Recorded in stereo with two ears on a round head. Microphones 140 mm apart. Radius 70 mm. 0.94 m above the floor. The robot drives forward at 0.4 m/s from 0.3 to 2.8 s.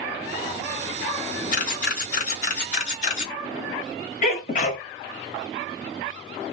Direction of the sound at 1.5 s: 55° left (ahead or behind).